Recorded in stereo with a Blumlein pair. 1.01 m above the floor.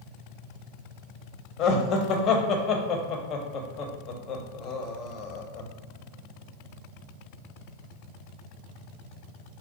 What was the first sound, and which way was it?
Laughter, 35° left.